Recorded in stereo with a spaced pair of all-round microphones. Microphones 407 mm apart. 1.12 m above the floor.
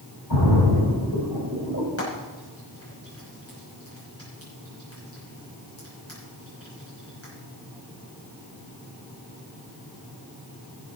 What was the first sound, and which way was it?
A splash, 80° left.